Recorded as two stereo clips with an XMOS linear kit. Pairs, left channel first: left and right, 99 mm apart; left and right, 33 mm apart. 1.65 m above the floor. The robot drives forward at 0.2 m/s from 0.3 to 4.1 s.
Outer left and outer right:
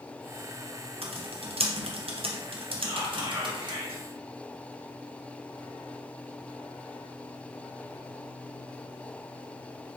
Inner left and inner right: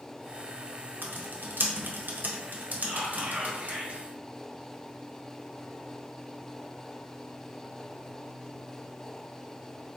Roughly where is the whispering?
Right.